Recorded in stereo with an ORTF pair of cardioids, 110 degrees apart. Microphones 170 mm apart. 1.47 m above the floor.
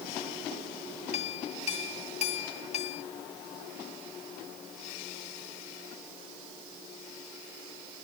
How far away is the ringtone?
I don't hear a ringtone.